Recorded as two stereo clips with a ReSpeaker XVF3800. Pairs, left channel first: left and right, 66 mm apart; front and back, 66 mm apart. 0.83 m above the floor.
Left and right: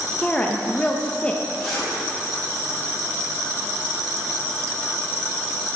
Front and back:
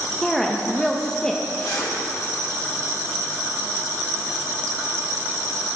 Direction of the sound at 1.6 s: Straight ahead.